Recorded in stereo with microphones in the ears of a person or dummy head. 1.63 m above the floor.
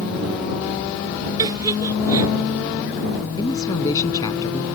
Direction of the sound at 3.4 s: 20° left (ahead or behind).